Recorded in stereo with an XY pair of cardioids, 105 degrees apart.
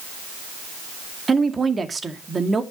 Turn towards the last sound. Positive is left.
turn(degrees=-25)